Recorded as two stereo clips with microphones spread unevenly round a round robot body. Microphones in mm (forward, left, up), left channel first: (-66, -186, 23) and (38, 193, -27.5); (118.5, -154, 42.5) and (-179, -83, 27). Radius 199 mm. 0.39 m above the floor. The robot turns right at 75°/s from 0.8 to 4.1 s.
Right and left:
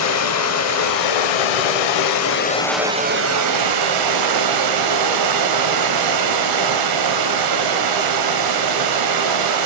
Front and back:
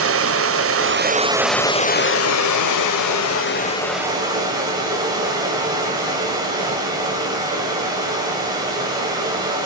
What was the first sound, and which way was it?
Running water, 160° right.